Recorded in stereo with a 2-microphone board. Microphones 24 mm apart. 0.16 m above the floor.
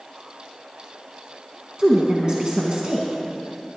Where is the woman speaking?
35° right (ahead or behind), 1.5 m.